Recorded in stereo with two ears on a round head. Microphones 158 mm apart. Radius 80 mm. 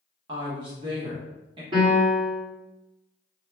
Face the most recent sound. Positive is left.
turn(degrees=-30)  # may be behind; listen again after turning